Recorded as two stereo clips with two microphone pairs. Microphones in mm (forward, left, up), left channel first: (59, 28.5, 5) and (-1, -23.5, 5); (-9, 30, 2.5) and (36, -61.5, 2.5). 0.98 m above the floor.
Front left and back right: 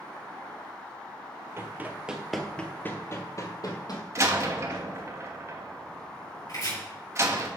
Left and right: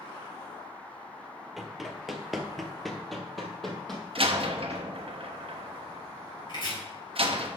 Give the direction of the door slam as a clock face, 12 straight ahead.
3 o'clock.